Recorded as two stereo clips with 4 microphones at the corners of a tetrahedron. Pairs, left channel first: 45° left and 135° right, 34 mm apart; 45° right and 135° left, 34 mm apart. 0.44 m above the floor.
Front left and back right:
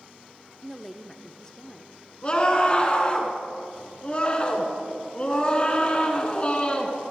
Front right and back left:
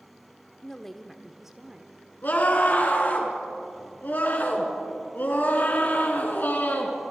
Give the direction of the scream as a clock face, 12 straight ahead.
12 o'clock.